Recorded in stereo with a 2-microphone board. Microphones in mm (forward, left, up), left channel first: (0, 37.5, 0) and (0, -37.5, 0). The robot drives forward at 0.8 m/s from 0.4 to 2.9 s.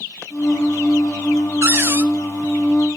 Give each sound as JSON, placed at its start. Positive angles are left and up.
{"t": 1.6, "sound": "a cupboard door", "side_deg": -35, "distance_m": 1.0}